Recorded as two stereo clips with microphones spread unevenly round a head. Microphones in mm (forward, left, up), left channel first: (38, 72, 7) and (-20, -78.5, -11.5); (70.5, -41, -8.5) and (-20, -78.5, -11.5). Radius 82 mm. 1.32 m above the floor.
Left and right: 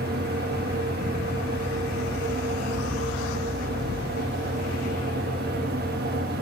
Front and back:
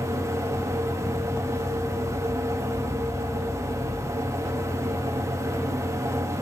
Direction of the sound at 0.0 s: 105° right.